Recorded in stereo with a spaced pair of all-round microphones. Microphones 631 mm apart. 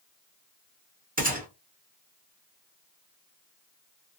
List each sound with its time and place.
1.2 s a gunshot: 15° right (ahead or behind), 0.9 m